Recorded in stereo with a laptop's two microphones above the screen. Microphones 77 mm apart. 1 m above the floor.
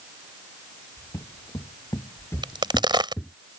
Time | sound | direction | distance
1.0 | footsteps | 60° left (ahead or behind) | ?
2.4 | a crack | 80° right | ?